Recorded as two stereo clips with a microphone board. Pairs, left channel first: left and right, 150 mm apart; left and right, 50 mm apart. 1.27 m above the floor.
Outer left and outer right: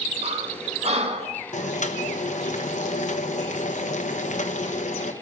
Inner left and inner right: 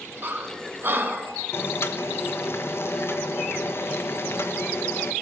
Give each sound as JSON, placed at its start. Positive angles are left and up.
{"t": 0.2, "sound": "breathing", "side_deg": -45, "distance_m": 2.0}
{"t": 1.5, "sound": "boiling", "side_deg": 55, "distance_m": 1.1}